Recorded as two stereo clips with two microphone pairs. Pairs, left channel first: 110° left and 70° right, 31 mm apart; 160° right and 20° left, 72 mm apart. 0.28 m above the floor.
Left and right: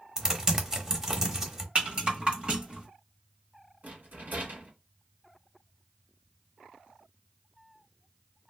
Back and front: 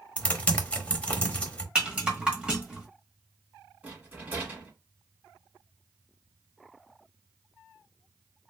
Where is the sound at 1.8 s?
50° right, 1.1 m.